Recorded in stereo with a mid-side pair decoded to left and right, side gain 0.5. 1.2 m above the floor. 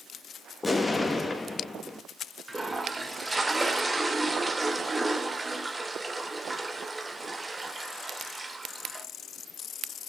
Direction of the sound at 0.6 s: 20° left.